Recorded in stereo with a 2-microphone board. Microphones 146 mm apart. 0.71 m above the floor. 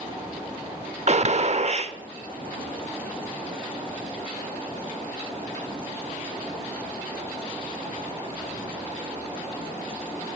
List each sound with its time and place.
1.1 s a gunshot: 50° right (ahead or behind), 0.5 m